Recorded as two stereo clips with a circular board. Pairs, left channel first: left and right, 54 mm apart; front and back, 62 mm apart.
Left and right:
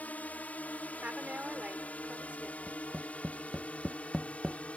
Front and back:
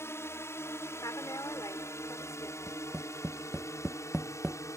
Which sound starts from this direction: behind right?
Tapping, at 2.7 s.